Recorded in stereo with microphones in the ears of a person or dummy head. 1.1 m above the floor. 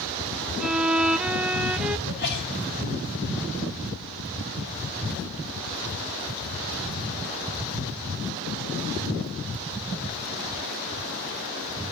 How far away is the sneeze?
About 6 m.